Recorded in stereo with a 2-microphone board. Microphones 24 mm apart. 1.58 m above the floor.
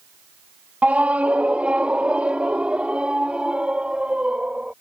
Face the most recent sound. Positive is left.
turn(degrees=-45)  # may be behind; listen again after turning